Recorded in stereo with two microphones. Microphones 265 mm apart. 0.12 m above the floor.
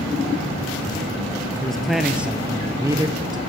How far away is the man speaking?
About 2.5 m.